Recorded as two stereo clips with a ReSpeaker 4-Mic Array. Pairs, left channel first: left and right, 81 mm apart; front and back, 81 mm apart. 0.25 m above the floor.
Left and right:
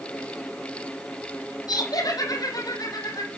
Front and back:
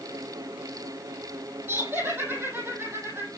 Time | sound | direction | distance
1.7 | laughter | 115° left | 7.5 m